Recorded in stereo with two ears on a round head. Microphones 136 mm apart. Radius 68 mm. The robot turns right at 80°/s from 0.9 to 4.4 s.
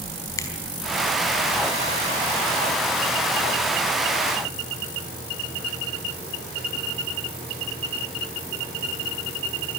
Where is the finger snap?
20° left (ahead or behind), 4 m.